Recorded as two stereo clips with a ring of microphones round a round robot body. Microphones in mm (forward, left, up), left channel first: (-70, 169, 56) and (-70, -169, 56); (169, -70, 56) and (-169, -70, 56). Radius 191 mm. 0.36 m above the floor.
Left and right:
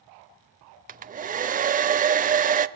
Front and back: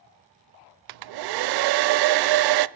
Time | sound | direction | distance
0.9 | a hair dryer | 160° right | 0.5 m